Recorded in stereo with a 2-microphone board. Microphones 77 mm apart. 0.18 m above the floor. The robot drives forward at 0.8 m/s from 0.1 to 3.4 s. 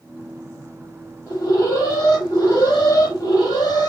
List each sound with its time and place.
1.3 s an alarm: 50° left (ahead or behind), 7 m; by 3.9 s 60° left (ahead or behind), 6.5 m